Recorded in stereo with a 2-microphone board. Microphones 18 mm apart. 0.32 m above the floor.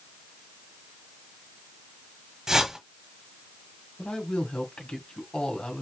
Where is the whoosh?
25° right (ahead or behind), 1.2 m.